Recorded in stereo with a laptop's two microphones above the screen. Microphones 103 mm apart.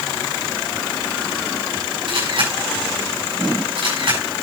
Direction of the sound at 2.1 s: 60° right (ahead or behind).